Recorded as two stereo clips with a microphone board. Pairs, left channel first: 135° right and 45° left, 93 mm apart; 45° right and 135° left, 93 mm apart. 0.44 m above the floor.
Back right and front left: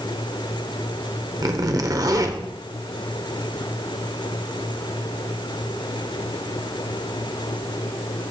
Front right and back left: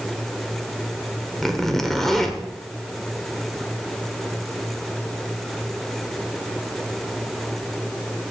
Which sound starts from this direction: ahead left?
A zipper, at 1.4 s.